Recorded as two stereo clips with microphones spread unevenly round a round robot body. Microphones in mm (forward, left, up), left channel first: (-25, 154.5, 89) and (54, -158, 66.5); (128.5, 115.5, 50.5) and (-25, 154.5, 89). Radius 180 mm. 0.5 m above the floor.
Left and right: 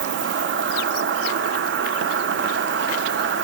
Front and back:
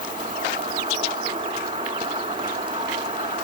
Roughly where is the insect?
Behind right.